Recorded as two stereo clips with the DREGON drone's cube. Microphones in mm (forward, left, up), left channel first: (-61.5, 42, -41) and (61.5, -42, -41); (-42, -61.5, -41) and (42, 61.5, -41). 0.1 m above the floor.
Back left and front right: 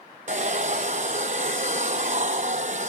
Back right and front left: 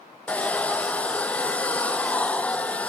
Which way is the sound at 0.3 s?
45° right.